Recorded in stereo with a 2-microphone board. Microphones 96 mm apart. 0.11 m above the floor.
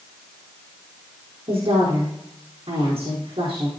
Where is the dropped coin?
I don't hear a dropped coin.